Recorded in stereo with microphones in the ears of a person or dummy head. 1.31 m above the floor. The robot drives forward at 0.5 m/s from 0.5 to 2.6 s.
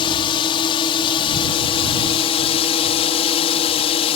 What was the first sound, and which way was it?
A drone, 25° left (ahead or behind).